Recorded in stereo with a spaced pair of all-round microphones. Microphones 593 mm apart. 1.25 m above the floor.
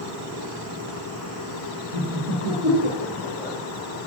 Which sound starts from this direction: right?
Laughter, at 1.9 s.